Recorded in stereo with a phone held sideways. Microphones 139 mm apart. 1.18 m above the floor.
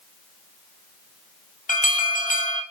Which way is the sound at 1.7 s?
75° left (ahead or behind).